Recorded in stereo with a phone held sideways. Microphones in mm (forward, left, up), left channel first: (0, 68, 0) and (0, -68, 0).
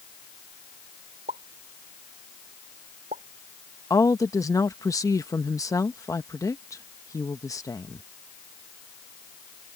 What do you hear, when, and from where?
1.3 s a pop: 80° right
3.9 s a woman speaking: 25° left (ahead or behind)